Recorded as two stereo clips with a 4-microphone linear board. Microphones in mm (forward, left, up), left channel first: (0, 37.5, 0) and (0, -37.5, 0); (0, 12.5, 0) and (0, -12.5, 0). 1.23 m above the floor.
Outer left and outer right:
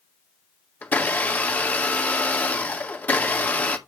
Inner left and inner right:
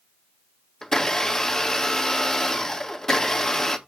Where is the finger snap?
No finger snap in this recording.